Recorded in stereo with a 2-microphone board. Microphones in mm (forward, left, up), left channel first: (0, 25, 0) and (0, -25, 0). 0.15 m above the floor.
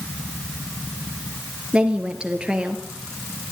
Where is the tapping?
I don't hear tapping.